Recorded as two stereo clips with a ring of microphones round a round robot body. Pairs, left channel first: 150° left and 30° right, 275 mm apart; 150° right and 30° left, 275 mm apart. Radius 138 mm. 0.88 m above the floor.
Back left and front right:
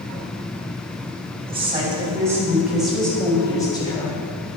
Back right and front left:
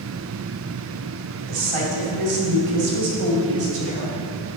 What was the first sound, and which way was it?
A woman speaking, 40° left.